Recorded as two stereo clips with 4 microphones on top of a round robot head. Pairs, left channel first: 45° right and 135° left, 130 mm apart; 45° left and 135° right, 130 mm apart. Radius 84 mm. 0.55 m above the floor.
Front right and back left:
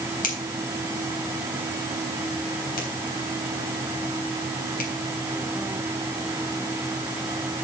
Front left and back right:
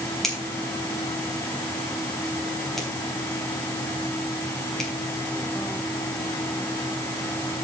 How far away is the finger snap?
About 3.5 m.